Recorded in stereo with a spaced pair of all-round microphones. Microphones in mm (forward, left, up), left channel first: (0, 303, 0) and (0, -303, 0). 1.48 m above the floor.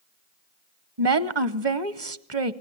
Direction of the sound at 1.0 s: 45° right (ahead or behind).